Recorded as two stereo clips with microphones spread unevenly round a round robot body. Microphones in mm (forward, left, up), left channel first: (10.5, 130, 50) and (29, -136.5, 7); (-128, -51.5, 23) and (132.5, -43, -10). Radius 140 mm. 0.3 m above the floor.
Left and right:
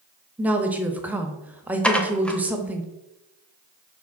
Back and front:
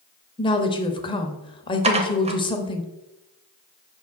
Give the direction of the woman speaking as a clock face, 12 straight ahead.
4 o'clock.